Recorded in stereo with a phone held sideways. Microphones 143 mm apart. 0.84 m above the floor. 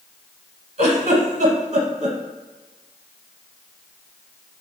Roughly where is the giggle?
Right.